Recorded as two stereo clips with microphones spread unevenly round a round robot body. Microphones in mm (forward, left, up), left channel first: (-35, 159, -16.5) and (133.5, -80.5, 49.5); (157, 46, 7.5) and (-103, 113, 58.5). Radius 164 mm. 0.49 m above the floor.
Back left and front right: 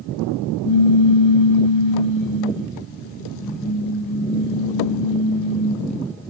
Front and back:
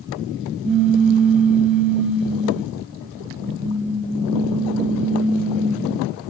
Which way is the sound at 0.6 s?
75° left.